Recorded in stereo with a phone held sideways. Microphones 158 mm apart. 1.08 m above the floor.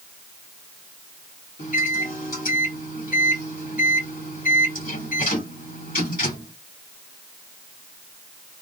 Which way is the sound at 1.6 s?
65° left (ahead or behind).